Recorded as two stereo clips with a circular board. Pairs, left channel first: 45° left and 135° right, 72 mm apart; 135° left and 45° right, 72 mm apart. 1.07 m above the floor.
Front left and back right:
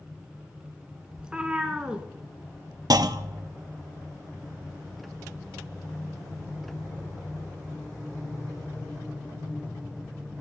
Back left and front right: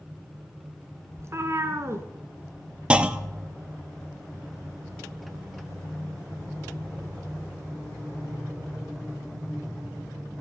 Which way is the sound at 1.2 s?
65° right.